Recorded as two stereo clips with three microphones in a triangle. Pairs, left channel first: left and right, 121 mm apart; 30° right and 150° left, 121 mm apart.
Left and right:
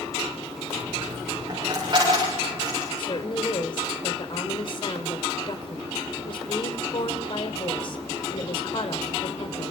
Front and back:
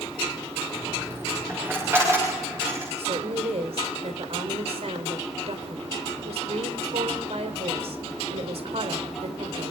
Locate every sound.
0.8 s a dropped coin: 140° right, 9.5 m
3.0 s a woman speaking: 130° left, 3 m